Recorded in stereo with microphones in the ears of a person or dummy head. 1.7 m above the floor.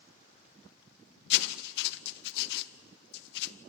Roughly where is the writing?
Left.